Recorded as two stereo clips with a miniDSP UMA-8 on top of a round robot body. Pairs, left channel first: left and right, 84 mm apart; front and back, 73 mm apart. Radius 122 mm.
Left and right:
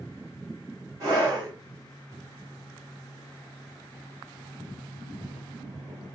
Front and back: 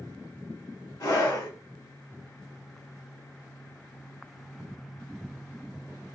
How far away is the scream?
About 2 m.